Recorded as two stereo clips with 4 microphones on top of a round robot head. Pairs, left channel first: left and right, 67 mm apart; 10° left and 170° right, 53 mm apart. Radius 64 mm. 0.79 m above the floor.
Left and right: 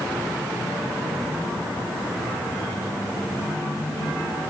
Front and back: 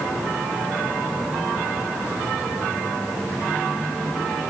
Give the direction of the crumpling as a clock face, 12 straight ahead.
I don't hear crumpling.